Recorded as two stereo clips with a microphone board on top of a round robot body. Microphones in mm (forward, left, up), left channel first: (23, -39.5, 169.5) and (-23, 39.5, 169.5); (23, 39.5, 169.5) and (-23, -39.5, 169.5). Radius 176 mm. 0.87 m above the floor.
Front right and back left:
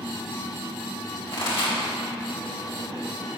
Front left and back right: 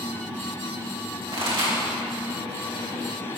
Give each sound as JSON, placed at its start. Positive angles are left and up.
{"t": 1.3, "sound": "a pop", "azimuth_deg": -90, "distance_m": 3.0}